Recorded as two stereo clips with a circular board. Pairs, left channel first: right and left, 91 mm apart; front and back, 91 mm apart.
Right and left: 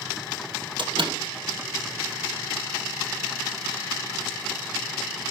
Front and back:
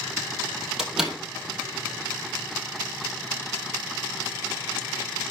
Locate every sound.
0.8 s a door slam: 95° left, 2.5 m